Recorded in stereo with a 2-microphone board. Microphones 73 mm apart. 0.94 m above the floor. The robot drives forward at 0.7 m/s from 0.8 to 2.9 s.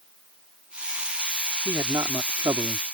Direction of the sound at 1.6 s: 55° right (ahead or behind).